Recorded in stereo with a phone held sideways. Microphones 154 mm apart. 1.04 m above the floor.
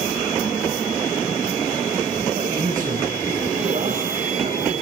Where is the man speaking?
60° right (ahead or behind), 6 m.